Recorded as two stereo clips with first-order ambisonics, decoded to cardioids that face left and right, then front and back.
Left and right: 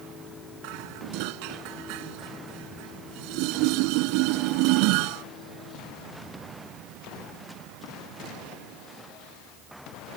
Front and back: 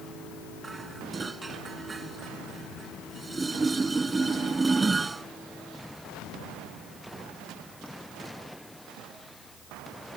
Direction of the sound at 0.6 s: 105° right.